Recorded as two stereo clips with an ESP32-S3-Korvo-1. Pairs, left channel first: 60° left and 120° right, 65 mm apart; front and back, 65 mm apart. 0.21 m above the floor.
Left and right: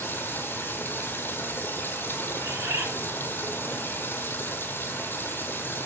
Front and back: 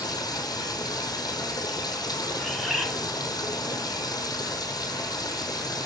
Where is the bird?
90° right, 1.3 m.